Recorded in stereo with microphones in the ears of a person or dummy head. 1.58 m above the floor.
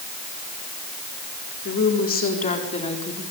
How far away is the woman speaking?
About 4 m.